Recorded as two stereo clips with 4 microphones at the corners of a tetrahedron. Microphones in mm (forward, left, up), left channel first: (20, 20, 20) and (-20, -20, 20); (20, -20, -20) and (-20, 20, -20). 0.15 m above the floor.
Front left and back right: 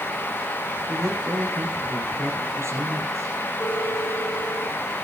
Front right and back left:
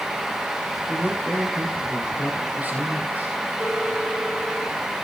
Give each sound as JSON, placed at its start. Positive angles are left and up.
{"t": 0.9, "sound": "a man speaking", "azimuth_deg": -165, "distance_m": 4.5}
{"t": 3.6, "sound": "a phone ringing", "azimuth_deg": 95, "distance_m": 8.5}